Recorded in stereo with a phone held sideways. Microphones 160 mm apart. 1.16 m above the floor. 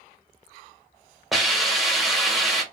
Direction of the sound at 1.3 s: Centre (ahead or behind).